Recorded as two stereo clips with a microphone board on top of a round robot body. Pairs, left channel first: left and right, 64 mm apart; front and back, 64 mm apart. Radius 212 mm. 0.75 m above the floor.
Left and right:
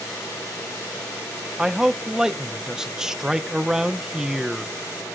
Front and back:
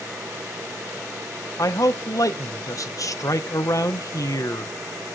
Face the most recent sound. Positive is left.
turn(degrees=-10)